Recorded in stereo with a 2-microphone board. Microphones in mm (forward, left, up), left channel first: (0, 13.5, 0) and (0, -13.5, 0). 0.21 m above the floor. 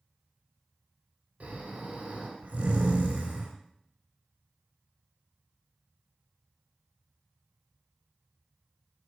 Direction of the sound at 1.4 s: 60° right (ahead or behind).